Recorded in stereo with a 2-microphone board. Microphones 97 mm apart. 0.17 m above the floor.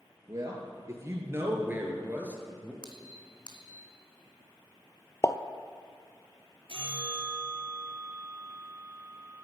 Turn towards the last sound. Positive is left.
turn(degrees=-65)  # may be behind; listen again after turning